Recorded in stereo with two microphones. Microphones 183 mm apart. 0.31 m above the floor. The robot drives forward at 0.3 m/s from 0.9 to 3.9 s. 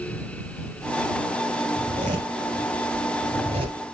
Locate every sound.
1.8 s a zipper: 45° right (ahead or behind), 2 m; by 3.8 s 35° right (ahead or behind), 2.5 m